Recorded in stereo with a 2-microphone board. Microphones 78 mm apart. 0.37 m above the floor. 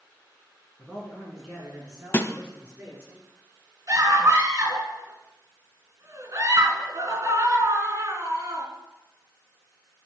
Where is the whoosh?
No whoosh in this recording.